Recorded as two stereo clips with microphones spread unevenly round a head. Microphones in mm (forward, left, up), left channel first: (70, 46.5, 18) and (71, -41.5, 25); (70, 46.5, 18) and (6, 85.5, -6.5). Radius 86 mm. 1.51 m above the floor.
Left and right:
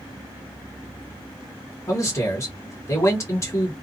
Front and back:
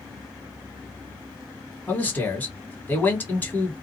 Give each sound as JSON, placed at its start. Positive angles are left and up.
{"t": 1.9, "sound": "a man speaking", "azimuth_deg": 35, "distance_m": 1.5}